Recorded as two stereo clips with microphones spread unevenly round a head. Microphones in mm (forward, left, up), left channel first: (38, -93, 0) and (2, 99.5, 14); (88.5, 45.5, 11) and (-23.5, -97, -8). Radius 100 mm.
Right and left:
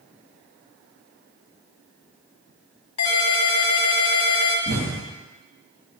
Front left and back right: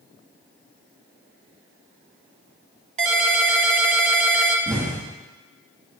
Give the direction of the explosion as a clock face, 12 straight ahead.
7 o'clock.